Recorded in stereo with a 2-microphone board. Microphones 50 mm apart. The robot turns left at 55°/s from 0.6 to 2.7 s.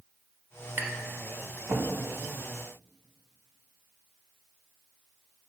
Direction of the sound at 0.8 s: 45° right (ahead or behind).